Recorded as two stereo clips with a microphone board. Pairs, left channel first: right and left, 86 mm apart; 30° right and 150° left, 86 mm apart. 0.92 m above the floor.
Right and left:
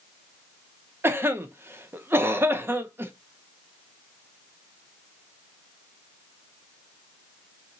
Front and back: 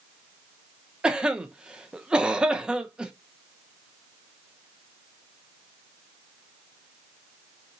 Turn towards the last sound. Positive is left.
turn(degrees=85)